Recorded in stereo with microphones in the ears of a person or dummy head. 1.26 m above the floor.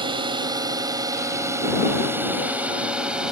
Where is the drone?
25° right (ahead or behind); by 3.3 s 5° right (ahead or behind).